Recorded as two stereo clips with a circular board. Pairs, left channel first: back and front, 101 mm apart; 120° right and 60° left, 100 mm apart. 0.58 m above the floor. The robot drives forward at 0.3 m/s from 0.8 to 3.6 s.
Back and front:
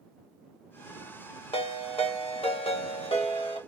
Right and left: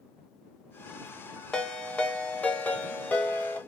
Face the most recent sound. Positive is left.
turn(degrees=165)